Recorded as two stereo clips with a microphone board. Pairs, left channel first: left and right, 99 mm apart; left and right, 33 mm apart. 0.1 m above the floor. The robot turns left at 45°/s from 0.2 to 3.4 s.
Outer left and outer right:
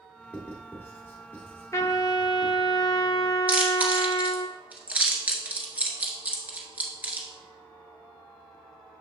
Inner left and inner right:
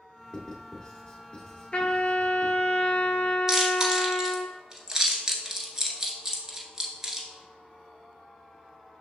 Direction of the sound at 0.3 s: 15° left (ahead or behind).